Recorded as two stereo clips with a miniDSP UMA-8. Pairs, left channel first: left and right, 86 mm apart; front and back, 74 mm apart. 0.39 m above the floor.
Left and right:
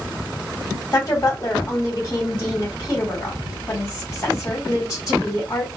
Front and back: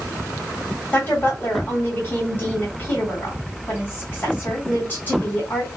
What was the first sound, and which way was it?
A woman speaking, 60° left.